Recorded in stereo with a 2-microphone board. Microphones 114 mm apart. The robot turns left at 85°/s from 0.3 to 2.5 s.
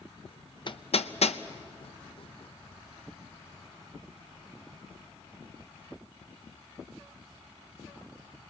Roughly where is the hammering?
Left.